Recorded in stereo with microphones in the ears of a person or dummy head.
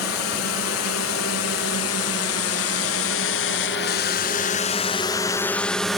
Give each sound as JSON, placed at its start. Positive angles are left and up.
{"t": 0.0, "sound": "a drone", "side_deg": 70}